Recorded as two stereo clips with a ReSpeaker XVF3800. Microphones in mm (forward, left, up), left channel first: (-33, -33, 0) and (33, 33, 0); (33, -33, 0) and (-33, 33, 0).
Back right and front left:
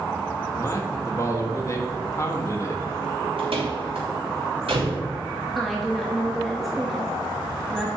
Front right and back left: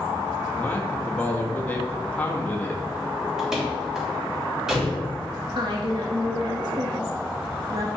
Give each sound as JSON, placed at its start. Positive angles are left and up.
{"t": 0.5, "sound": "a man speaking", "azimuth_deg": -110, "distance_m": 1.3}
{"t": 3.4, "sound": "a door slam", "azimuth_deg": 50, "distance_m": 2.5}
{"t": 5.5, "sound": "a woman speaking", "azimuth_deg": 135, "distance_m": 1.0}